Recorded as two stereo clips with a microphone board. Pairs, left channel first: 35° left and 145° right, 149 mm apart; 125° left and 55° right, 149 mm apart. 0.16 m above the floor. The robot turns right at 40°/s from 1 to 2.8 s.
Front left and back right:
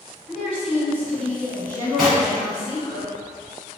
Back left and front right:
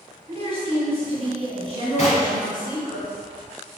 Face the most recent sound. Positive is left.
turn(degrees=155)